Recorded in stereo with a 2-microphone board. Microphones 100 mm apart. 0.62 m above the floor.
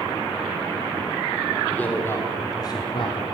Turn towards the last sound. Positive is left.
turn(degrees=55)  # may be behind; listen again after turning